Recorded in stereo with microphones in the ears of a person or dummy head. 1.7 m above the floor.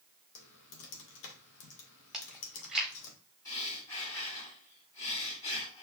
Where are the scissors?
I don't hear scissors.